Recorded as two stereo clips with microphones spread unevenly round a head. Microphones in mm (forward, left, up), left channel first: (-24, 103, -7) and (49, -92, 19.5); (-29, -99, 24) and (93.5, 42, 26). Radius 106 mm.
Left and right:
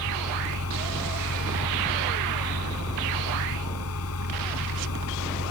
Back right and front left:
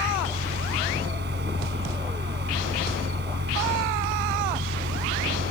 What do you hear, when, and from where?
0.0 s a fan: 95° left